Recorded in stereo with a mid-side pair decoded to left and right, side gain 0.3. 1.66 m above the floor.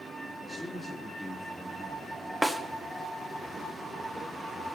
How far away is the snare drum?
About 1.2 m.